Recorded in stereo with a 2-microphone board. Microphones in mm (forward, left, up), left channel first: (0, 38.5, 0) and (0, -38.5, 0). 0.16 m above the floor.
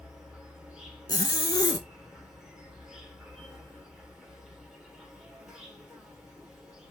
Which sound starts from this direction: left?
A zipper, at 1.1 s.